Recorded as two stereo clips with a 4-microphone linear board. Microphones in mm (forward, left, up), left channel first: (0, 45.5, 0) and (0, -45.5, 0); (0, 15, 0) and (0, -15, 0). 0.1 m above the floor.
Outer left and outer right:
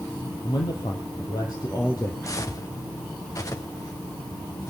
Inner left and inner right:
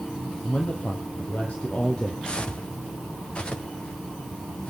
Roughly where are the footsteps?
Left.